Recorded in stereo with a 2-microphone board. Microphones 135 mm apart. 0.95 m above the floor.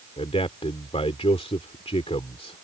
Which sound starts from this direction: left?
A man speaking, at 0.2 s.